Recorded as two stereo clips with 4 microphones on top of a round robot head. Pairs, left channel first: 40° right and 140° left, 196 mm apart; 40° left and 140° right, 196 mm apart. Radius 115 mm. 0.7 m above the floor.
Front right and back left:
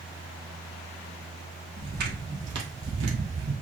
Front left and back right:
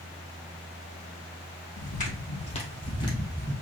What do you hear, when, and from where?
1.8 s footsteps: 90° left, 2 m; by 3.5 s 120° left, 1.4 m